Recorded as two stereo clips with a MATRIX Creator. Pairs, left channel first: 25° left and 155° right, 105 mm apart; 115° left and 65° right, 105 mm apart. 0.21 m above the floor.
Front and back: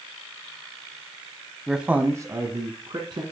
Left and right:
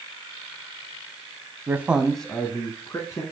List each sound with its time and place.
1.7 s a man speaking: 70° right, 1.0 m; by 3.2 s 165° left, 1.9 m